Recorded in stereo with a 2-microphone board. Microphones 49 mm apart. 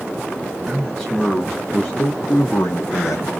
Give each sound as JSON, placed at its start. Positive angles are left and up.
{"t": 0.7, "sound": "a man speaking", "side_deg": 5, "distance_m": 1.3}